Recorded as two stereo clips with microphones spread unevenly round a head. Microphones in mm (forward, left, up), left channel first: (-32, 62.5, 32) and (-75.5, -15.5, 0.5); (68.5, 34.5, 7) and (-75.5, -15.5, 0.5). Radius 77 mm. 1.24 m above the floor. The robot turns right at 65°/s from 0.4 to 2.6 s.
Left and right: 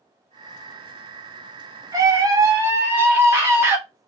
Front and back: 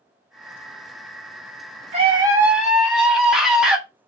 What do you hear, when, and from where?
1.9 s a scream: 120° right, 1.0 m; by 3.8 s 75° right, 1.0 m